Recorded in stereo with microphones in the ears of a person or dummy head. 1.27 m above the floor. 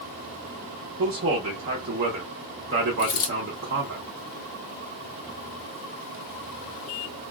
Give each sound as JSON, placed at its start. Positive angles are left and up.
{"t": 1.0, "sound": "a man speaking", "side_deg": -45, "distance_m": 0.6}
{"t": 3.0, "sound": "a dropped coin", "side_deg": 25, "distance_m": 1.3}